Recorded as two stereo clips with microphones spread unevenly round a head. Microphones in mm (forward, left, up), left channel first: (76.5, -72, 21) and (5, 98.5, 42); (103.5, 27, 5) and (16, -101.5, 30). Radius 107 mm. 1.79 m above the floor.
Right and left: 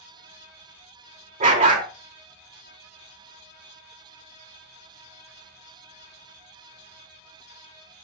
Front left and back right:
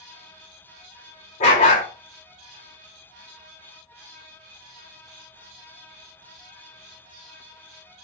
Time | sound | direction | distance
1.4 | a dog barking | 105° left | 1.9 m